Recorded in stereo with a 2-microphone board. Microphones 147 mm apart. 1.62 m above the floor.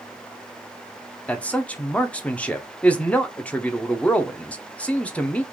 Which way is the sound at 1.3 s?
10° left (ahead or behind).